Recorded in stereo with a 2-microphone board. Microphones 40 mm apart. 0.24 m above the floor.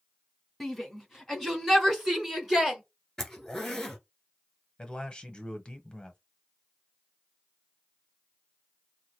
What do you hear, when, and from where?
0.6 s a shout: centre (ahead or behind), 1.8 m; by 2.8 s 10° right (ahead or behind), 3 m
3.2 s a zipper: 10° left (ahead or behind), 1.3 m
4.8 s a man speaking: 25° left (ahead or behind), 0.9 m